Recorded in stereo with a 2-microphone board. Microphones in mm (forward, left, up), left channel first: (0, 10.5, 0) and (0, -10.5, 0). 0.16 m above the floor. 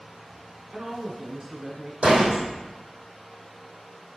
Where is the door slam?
75° right (ahead or behind), 4.5 m.